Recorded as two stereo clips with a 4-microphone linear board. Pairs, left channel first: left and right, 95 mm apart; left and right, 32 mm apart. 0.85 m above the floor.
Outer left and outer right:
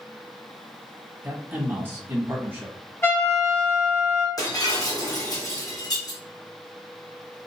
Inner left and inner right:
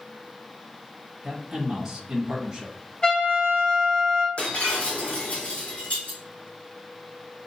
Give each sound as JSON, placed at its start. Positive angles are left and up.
{"t": 1.2, "sound": "a man speaking", "side_deg": -20, "distance_m": 1.2}
{"t": 3.0, "sound": "a trumpet", "side_deg": 25, "distance_m": 1.1}
{"t": 4.4, "sound": "breaking glass", "side_deg": 40, "distance_m": 1.8}